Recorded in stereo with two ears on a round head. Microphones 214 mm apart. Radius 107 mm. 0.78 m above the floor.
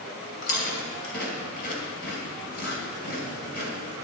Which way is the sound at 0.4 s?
45° left (ahead or behind).